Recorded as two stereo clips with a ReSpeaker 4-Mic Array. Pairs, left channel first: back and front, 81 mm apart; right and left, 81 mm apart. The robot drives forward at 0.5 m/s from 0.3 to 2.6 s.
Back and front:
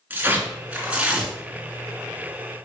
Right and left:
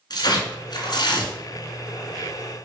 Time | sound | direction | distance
0.1 | tearing paper | 70° right | 2.5 m